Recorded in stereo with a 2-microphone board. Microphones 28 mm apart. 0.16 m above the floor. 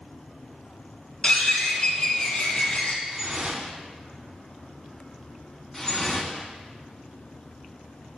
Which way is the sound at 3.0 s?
30° right (ahead or behind).